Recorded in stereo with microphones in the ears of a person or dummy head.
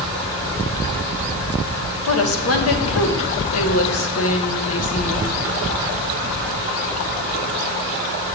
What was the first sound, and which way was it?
A woman speaking, 70° left (ahead or behind).